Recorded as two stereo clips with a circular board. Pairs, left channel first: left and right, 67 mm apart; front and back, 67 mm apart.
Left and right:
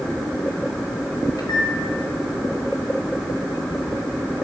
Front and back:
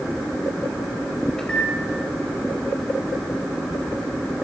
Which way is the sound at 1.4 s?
80° left.